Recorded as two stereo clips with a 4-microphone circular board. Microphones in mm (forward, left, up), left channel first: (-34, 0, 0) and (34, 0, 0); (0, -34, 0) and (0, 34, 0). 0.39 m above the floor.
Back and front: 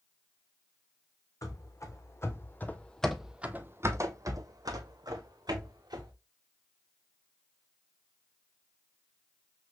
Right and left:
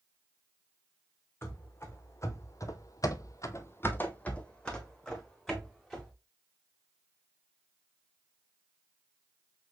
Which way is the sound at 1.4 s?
145° right.